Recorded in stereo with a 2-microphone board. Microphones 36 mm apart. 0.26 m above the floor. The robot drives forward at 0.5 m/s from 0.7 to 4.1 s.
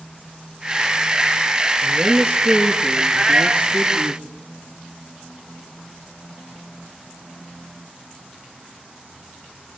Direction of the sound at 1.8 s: 60° right (ahead or behind).